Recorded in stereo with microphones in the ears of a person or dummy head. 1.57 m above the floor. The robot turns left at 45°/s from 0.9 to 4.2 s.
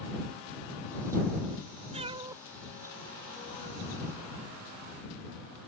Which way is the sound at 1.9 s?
30° right (ahead or behind).